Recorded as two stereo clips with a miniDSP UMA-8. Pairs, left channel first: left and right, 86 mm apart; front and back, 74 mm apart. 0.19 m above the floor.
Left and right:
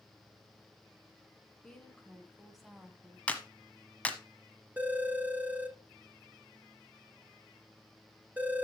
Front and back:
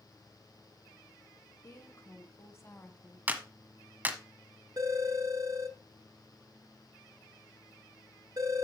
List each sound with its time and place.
1.6 s a woman speaking: 10° left, 2 m; by 3.2 s 25° right, 1.4 m
3.3 s a clap: 145° left, 1.2 m
4.8 s a phone ringing: 160° right, 1.4 m